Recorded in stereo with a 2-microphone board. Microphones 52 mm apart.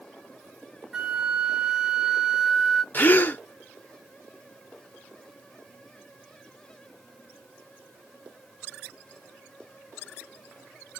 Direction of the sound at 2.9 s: 40° left (ahead or behind).